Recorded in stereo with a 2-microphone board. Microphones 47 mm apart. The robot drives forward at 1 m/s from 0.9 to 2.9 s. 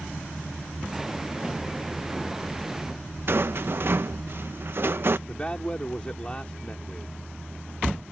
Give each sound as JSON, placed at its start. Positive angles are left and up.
{"t": 3.3, "sound": "a rattle", "side_deg": -50}
{"t": 5.3, "sound": "a man speaking", "side_deg": 20}